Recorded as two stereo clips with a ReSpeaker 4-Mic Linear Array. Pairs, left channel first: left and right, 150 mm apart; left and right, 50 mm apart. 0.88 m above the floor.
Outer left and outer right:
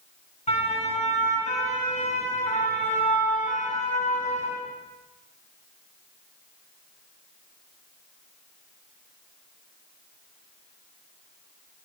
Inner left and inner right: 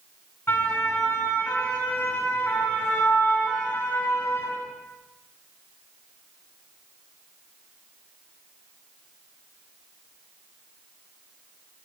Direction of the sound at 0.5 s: 50° left (ahead or behind).